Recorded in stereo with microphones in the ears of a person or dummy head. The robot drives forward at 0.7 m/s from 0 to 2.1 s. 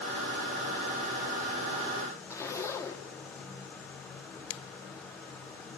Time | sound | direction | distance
2.3 | a zipper | 20° left (ahead or behind) | 1.3 m
4.5 | a finger snap | 75° left (ahead or behind) | 1.1 m